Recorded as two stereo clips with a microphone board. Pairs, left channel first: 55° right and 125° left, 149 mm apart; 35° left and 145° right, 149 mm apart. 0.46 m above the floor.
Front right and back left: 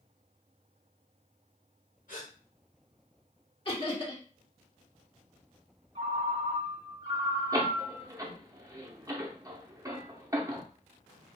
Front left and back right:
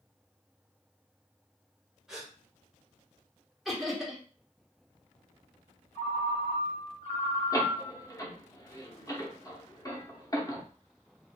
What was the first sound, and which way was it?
A gasp, 60° right.